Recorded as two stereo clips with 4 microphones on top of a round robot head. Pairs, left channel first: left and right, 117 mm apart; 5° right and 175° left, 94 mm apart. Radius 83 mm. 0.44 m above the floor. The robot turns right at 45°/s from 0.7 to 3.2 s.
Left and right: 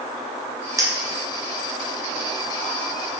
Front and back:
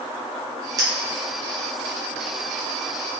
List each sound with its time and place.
0.8 s a clink: 145° right, 1.0 m; by 0.9 s 135° right, 1.0 m